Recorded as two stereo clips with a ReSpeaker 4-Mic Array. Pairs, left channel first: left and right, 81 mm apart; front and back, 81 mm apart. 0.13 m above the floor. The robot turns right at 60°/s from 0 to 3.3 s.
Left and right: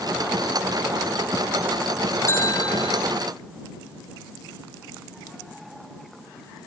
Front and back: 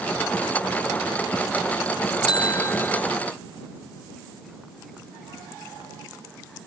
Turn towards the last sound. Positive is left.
turn(degrees=95)